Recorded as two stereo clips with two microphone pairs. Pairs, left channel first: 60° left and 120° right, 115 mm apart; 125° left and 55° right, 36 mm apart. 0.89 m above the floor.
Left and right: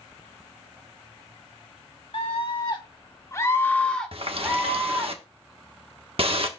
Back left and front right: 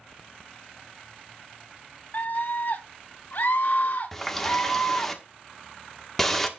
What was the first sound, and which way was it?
A scream, 90° left.